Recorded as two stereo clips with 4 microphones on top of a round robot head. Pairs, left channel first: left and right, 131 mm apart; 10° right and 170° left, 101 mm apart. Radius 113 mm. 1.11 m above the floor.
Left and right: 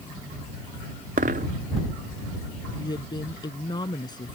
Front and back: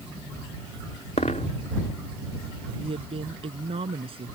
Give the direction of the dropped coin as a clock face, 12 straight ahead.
2 o'clock.